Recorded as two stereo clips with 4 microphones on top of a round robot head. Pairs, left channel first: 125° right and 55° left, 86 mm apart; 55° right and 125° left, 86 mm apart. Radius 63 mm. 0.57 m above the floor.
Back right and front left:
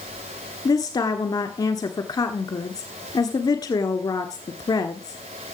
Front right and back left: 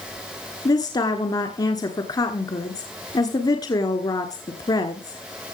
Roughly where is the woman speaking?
Right.